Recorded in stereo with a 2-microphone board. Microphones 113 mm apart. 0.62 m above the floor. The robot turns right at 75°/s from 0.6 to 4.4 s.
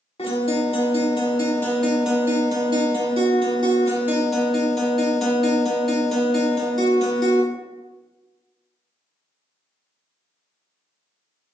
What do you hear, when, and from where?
0.2 s a guitar: 80° left, 0.9 m; by 7.4 s 5° left, 0.9 m